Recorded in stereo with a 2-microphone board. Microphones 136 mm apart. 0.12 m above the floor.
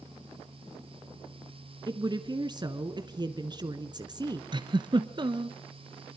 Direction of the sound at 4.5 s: 35° right (ahead or behind).